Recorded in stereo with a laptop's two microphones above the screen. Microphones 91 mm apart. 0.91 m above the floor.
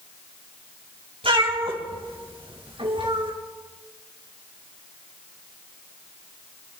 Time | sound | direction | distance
1.2 | a cat meowing | 80° right | 3 m